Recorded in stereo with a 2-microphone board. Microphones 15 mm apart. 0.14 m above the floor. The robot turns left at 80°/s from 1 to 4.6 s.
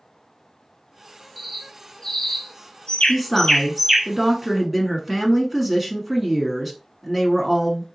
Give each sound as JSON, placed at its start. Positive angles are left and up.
{"t": 1.4, "sound": "a bird", "side_deg": -15, "distance_m": 0.7}
{"t": 3.1, "sound": "a woman speaking", "side_deg": -5, "distance_m": 1.0}